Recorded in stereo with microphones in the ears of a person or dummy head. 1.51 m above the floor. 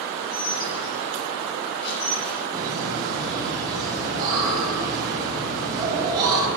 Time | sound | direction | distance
0.2 | dishes clattering | 60° left (ahead or behind) | 6.5 m
2.5 | laughter | 20° right (ahead or behind) | 9 m